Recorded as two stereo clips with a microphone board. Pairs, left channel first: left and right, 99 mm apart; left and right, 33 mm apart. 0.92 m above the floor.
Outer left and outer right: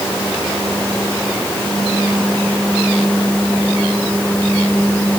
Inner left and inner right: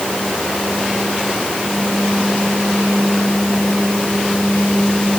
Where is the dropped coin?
No dropped coin in this recording.